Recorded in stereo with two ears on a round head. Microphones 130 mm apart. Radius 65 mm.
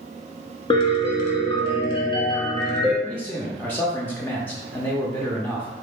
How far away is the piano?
About 1.2 m.